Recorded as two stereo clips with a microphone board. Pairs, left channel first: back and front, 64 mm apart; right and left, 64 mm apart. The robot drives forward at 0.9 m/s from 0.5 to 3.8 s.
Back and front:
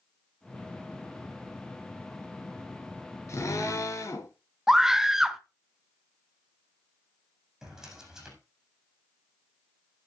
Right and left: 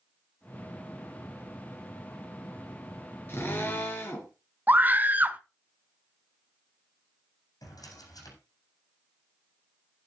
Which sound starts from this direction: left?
A scream, at 4.7 s.